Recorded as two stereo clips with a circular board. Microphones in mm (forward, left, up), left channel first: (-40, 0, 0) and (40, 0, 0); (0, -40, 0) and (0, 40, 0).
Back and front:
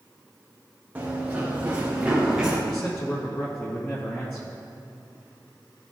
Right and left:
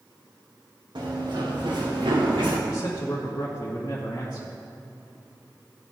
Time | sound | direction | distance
0.9 | running footsteps | 75° left | 3.5 m
2.7 | a man speaking | 130° right | 2.5 m